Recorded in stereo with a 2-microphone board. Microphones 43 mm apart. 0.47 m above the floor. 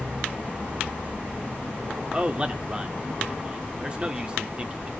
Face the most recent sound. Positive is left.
turn(degrees=-20)  # may be behind; listen again after turning